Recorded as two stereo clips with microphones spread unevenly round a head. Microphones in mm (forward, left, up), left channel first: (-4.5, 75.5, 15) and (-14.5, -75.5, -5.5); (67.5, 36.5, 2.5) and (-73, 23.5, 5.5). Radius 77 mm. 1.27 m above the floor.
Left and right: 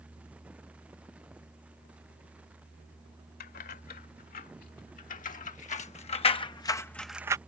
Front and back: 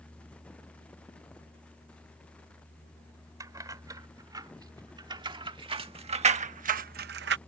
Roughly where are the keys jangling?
Behind left.